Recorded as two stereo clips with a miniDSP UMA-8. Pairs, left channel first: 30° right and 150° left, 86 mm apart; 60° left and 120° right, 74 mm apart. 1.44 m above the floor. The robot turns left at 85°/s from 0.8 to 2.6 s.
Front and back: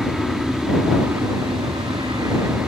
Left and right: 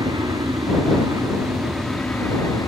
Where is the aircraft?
120° right; by 2.7 s 85° left.